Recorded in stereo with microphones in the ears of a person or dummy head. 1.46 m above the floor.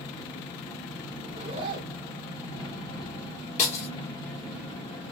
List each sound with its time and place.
0.0 s an engine running: 25° left (ahead or behind), 1.8 m
1.2 s a zipper: 35° right (ahead or behind), 1.2 m
3.6 s breaking glass: 35° left (ahead or behind), 1.8 m